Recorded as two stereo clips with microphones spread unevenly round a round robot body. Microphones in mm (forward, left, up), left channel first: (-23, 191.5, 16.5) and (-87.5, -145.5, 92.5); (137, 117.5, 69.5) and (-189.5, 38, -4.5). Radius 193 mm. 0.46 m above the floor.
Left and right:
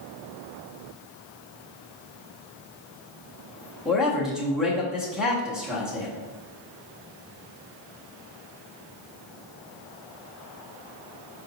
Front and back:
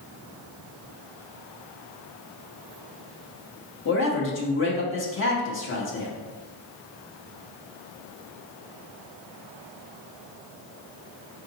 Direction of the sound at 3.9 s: 20° left.